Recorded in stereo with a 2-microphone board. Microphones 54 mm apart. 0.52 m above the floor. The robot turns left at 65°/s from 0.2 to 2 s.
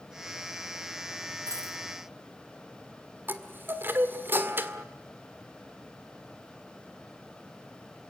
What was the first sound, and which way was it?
A dropped coin, 85° right.